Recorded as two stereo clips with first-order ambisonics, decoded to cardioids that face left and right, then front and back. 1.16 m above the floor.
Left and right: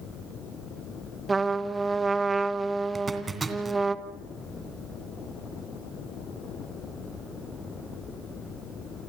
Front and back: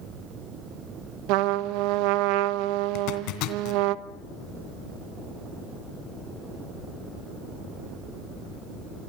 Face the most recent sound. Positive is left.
turn(degrees=-15)